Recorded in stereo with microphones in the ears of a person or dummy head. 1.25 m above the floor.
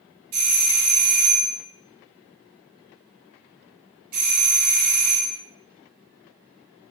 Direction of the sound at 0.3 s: 55° right (ahead or behind).